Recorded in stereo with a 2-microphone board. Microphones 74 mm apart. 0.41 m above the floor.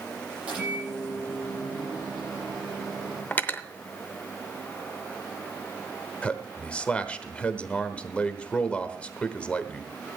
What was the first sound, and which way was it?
A microwave, 15° right (ahead or behind).